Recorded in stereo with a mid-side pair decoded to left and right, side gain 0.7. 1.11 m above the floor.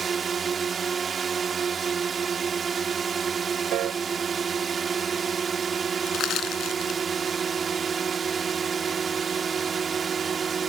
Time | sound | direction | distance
0.0 | a drone | 25° right | ?
3.7 | a piano | 55° right | ?
6.1 | crushing | 50° left | ?